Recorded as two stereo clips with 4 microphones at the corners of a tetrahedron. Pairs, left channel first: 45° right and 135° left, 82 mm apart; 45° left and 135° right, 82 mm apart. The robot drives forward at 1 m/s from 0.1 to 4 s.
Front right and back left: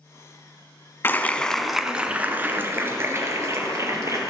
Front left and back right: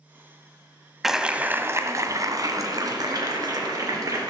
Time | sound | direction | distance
1.0 | a clap | 50° right | 1.0 m